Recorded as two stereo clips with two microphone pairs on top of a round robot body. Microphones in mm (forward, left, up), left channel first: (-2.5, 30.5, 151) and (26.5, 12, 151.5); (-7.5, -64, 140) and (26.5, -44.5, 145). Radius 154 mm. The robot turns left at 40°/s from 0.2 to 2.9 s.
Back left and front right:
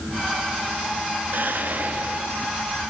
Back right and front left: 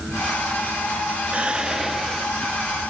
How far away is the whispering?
About 1.0 m.